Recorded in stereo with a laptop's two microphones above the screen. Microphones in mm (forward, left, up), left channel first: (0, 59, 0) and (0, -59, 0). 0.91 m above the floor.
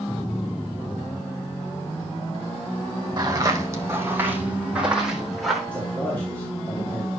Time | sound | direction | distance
3.2 | footsteps | 35° right (ahead or behind) | 3 m
5.7 | a man speaking | 15° left (ahead or behind) | 2.5 m